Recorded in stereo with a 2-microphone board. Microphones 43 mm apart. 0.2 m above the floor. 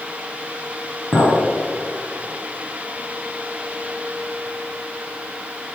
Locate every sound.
1.1 s a clink: 75° left (ahead or behind), 2.5 m